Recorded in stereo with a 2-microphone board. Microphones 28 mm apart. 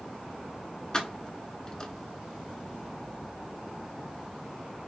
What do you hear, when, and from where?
0.9 s keys jangling: 25° left (ahead or behind), 0.9 m